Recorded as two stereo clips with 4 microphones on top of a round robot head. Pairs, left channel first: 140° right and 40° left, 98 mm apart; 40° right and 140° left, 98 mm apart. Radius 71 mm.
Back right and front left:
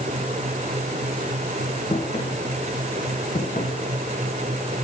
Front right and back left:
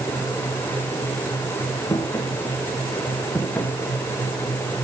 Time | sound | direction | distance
1.9 | footsteps | 105° right | 5.5 m